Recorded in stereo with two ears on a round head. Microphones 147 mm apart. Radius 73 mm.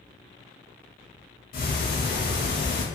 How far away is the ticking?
About 0.9 m.